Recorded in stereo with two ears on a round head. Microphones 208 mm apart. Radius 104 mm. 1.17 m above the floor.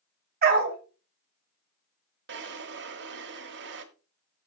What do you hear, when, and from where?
0.4 s a dog barking: 40° right (ahead or behind), 2.0 m
2.3 s a drawer: 50° right (ahead or behind), 1.4 m